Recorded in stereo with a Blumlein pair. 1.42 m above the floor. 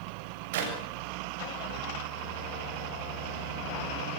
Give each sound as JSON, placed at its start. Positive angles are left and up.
{"t": 0.5, "sound": "a clap", "azimuth_deg": -55, "distance_m": 7.0}